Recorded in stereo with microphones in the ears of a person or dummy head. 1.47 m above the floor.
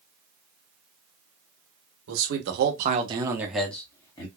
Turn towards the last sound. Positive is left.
turn(degrees=25)  # may be behind; listen again after turning